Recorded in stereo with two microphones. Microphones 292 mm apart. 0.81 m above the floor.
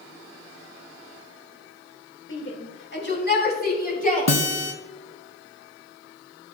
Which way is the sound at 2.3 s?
45° left (ahead or behind).